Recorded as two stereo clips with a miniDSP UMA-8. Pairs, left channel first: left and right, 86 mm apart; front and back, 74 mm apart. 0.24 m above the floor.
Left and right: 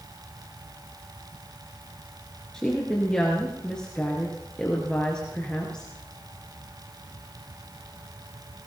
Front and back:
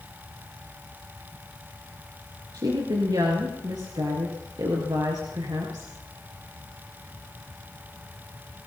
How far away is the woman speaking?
About 3.5 m.